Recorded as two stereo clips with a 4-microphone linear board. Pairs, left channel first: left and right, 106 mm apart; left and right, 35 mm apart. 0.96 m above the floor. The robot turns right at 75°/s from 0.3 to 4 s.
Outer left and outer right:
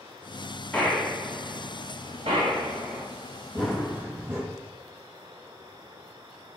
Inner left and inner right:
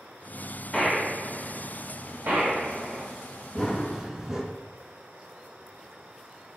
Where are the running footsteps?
165° left, 1.8 m; by 4.4 s 160° right, 1.8 m.